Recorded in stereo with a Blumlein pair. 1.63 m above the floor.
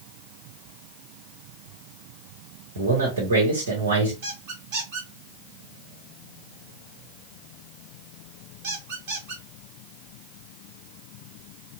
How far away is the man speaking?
About 1.3 m.